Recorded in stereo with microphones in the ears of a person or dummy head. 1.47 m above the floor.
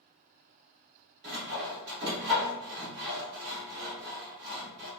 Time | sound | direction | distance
1.2 | sawing | 60° right (ahead or behind) | 1.3 m